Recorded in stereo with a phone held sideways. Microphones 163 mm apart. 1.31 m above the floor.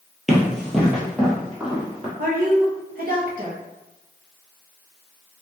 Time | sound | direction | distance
0.3 | running footsteps | centre (ahead or behind) | 1.4 m
2.2 | a woman speaking | 65° right (ahead or behind) | 1.1 m